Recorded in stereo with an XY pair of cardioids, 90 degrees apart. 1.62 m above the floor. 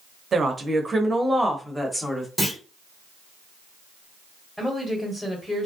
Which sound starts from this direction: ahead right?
A woman speaking, at 0.3 s.